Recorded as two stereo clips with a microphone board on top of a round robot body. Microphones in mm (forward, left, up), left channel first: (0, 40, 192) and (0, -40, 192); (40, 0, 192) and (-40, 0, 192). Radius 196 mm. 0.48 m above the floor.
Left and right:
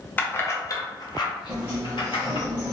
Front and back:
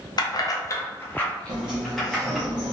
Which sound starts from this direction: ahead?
Keys jangling, at 0.2 s.